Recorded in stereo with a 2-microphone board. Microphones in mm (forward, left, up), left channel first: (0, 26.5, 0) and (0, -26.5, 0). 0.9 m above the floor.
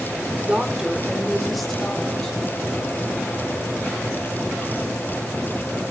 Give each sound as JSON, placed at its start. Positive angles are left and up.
{"t": 0.4, "sound": "a woman speaking", "side_deg": -25, "distance_m": 2.0}